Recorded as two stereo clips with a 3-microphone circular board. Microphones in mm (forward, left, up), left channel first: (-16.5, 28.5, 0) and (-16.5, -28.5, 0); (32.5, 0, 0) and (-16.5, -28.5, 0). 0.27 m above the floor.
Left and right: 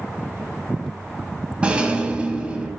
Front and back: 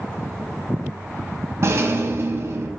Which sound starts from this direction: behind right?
A rattle, at 1.6 s.